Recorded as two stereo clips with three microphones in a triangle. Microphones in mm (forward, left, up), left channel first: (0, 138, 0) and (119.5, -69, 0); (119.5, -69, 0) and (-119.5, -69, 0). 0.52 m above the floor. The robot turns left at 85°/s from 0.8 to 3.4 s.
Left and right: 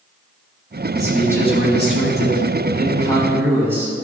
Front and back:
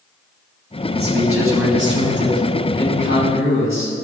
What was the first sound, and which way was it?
A man speaking, 130° right.